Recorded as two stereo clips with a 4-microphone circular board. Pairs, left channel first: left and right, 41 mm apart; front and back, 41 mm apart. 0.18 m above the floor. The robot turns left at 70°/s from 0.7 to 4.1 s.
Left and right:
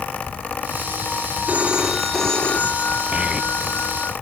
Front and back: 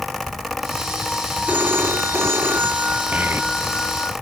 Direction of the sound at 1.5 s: 135° right.